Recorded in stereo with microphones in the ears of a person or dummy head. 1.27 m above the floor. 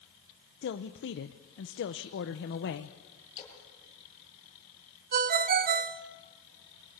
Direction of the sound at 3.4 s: 20° left (ahead or behind).